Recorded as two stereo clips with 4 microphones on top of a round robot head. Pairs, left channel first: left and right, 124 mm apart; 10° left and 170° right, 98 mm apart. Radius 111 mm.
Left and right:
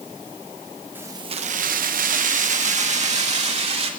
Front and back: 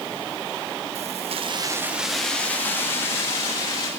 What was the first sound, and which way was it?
Keys jangling, 165° right.